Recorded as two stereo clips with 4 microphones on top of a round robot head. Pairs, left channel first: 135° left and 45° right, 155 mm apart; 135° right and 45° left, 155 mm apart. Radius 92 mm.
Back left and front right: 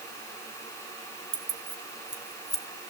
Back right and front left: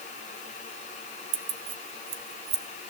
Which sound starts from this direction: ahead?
Keys jangling, at 1.3 s.